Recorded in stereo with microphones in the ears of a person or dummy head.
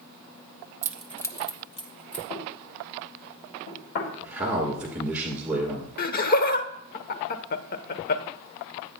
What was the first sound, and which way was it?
Keys jangling, 15° right (ahead or behind).